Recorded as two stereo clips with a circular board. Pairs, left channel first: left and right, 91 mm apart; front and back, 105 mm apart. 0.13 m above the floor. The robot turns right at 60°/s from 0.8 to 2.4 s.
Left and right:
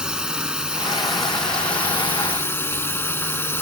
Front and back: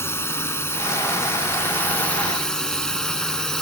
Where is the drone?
20° right; by 3.6 s 75° left.